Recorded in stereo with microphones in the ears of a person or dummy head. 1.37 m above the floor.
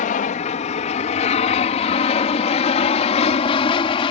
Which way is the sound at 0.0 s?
40° left (ahead or behind).